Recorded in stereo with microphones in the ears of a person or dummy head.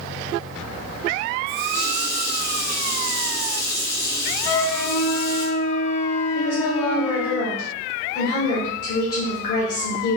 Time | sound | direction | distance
1.5 | a running tap | 55° left (ahead or behind) | 1.8 m
4.5 | a flute | 60° left (ahead or behind) | 0.8 m
6.3 | a woman speaking | 55° left (ahead or behind) | 1.0 m